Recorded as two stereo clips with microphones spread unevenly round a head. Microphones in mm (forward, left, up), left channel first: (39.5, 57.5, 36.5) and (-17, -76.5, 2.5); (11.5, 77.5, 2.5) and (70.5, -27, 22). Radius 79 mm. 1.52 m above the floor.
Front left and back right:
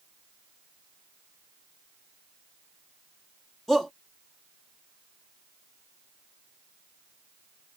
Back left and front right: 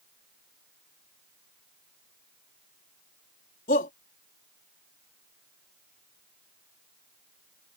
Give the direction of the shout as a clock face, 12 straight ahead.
7 o'clock.